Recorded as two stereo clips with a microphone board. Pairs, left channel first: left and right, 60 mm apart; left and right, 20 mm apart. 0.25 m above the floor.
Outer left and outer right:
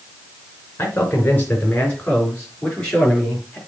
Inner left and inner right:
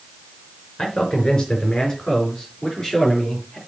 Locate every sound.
0.8 s a man speaking: 35° left (ahead or behind), 3.5 m; by 3.6 s 15° left (ahead or behind), 4.5 m